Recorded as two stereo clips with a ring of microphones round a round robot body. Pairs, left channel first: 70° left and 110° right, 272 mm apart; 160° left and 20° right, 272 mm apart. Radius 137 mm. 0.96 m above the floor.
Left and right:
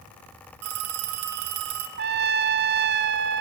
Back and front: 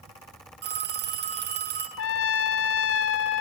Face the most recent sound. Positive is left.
turn(degrees=-165)